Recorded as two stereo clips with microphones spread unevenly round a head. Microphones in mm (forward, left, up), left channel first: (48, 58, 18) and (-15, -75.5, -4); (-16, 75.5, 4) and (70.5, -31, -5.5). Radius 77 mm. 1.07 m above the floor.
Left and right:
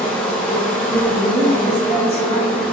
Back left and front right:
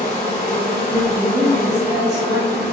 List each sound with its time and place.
0.0 s an insect: 145° left, 1.2 m
1.2 s a woman speaking: 25° left, 1.7 m